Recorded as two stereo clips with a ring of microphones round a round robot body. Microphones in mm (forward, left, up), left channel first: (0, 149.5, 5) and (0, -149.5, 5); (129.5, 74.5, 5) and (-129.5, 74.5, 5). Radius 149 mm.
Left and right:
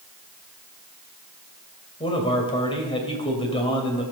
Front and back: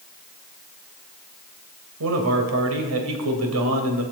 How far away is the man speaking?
About 3 m.